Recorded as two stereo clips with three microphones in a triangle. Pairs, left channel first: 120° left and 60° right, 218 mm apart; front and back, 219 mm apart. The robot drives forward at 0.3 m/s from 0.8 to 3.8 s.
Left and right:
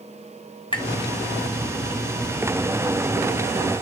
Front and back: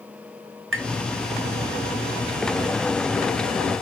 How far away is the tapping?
About 0.7 m.